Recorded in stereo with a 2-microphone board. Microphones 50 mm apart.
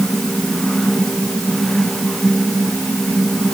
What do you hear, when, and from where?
Only background noise.